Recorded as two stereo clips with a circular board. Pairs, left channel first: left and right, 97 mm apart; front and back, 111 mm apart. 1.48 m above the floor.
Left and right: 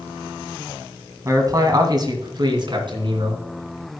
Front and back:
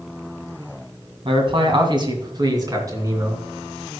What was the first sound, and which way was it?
A man speaking, 145° right.